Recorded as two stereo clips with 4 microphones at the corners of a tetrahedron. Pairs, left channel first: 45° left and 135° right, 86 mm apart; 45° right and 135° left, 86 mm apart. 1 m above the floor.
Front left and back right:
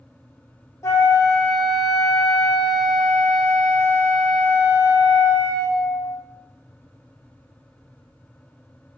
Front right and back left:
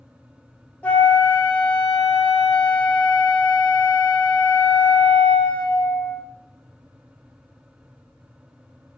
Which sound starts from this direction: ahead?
A flute, at 0.8 s.